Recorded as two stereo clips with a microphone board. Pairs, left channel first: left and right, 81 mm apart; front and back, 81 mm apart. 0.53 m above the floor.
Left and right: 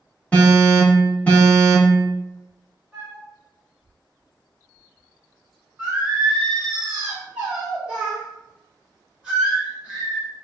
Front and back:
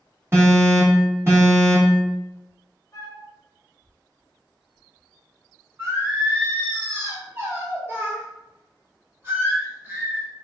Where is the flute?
15° right, 1.8 m.